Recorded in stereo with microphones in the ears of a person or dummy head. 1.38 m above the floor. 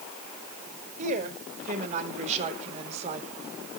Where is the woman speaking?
45° right (ahead or behind), 5 m; by 3.2 s 40° right (ahead or behind), 4 m.